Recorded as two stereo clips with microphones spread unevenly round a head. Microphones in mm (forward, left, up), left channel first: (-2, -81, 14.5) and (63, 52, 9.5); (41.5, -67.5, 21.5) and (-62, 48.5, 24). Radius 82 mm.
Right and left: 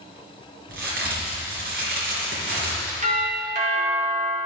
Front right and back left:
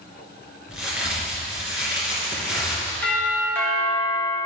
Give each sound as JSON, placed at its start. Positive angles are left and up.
{"t": 0.7, "sound": "a crack", "azimuth_deg": 50, "distance_m": 3.5}
{"t": 3.0, "sound": "a doorbell", "azimuth_deg": 30, "distance_m": 2.0}